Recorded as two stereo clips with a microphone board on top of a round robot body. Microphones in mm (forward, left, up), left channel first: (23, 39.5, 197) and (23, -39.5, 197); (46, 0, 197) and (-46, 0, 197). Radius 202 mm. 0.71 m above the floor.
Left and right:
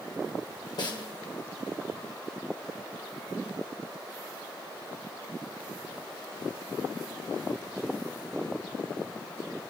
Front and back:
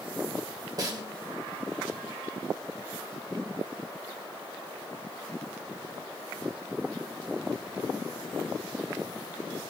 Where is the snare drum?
125° left, 1.8 m.